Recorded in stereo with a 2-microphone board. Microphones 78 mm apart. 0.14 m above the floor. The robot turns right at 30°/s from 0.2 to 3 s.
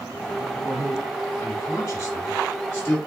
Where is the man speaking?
30° left (ahead or behind), 1.7 m; by 3.0 s 20° left (ahead or behind), 1.7 m.